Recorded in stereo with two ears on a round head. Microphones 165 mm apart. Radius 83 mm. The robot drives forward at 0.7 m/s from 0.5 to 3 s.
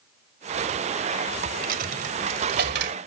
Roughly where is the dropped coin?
Right.